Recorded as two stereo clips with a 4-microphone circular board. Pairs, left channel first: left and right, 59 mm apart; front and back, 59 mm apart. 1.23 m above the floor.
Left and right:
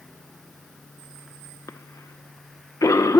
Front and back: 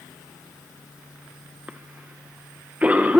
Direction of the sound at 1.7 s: 115° left.